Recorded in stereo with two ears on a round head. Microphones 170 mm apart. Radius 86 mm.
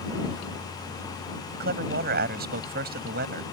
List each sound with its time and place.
1.5 s a man speaking: 55° right (ahead or behind)